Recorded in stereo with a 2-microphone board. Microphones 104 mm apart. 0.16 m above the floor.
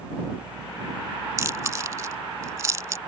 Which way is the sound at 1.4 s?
30° right (ahead or behind).